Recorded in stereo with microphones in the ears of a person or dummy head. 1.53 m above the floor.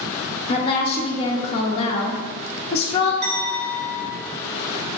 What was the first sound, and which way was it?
A woman speaking, 35° left (ahead or behind).